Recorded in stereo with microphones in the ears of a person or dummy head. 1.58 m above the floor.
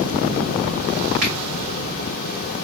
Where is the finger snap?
45° right (ahead or behind), 1.0 m.